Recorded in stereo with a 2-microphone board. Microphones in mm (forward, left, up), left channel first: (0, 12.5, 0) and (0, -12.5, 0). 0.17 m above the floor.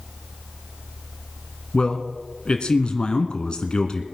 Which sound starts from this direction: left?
A man speaking, at 1.7 s.